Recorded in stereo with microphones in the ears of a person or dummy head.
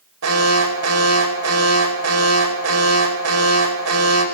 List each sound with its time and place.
0.2 s an alarm: 85° right, 5 m